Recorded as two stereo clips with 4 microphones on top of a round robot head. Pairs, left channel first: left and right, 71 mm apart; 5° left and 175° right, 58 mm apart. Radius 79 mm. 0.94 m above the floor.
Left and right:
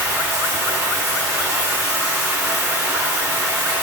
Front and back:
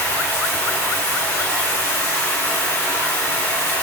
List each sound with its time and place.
0.0 s running water: 45° right, 1.1 m